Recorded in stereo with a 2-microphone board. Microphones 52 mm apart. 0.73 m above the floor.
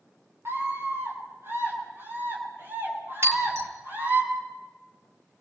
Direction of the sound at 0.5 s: 45° right (ahead or behind).